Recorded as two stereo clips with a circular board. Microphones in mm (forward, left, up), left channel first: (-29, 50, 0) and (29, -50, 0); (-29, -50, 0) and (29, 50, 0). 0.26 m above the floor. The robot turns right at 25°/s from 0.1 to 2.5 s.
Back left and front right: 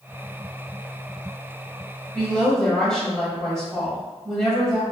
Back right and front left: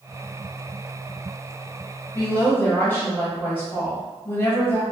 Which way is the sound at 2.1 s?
175° right.